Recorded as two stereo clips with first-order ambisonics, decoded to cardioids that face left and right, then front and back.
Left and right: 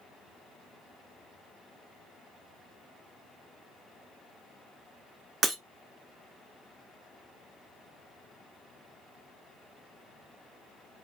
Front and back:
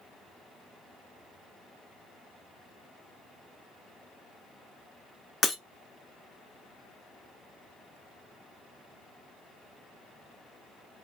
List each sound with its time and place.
5.4 s breaking glass: 50° right, 0.9 m